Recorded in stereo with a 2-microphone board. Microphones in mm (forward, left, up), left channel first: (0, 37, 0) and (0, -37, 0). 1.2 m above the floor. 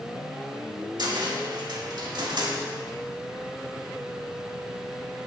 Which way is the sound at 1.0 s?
60° right (ahead or behind).